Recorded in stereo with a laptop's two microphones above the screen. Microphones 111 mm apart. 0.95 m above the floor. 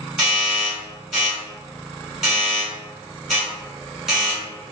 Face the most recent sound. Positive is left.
turn(degrees=-5)  # may be behind; listen again after turning